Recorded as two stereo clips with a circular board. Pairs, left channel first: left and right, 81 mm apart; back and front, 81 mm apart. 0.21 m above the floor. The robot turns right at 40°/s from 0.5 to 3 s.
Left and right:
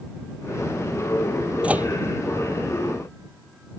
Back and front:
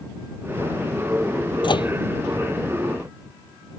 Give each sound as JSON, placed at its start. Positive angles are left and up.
{"t": 1.6, "sound": "a microwave", "azimuth_deg": -165}